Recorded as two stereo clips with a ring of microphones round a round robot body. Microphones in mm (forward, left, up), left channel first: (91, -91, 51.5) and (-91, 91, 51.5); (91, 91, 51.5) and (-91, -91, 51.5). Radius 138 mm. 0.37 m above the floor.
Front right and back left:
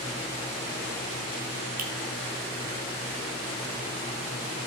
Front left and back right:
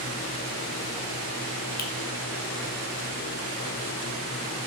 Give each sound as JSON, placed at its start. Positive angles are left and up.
{"t": 1.8, "sound": "a finger snap", "azimuth_deg": 85, "distance_m": 1.7}